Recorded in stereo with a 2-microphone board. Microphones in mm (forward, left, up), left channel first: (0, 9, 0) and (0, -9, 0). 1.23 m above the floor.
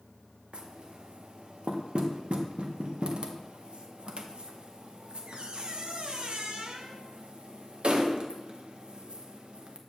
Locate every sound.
0.5 s knocking: 55° right (ahead or behind), 0.8 m